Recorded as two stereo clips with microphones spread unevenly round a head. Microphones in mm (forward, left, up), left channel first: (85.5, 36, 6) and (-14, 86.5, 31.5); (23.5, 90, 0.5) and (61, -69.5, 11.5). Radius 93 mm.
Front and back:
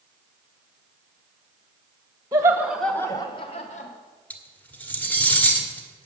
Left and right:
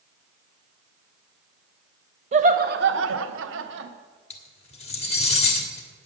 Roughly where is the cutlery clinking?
Ahead left.